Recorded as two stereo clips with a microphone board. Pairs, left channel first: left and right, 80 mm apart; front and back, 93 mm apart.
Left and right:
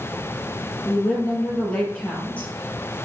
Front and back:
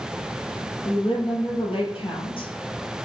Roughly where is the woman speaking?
Ahead.